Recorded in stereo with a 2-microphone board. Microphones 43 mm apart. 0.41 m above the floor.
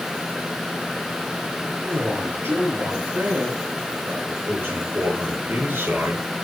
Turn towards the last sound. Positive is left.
turn(degrees=-60)  # may be behind; listen again after turning